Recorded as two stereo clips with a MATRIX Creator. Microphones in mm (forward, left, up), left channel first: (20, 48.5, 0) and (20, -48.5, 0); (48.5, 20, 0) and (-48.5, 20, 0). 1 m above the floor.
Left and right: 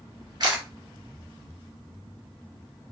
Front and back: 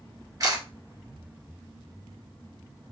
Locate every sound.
0.4 s a camera shutter: 130° right, 2.5 m